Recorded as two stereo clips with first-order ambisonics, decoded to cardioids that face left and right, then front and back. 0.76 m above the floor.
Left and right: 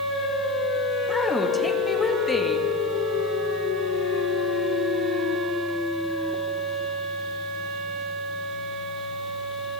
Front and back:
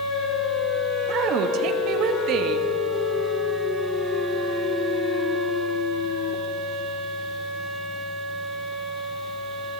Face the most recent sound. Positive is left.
turn(degrees=165)